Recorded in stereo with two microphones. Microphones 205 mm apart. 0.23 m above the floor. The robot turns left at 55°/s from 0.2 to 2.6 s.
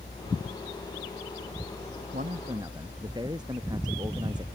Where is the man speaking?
45° right (ahead or behind); by 4.5 s 20° right (ahead or behind).